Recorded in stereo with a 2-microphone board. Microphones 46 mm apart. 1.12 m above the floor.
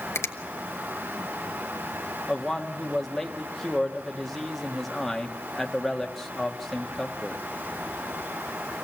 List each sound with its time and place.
0.1 s a finger snap: 75° left (ahead or behind), 1.2 m
2.3 s a man speaking: 5° left (ahead or behind), 1.5 m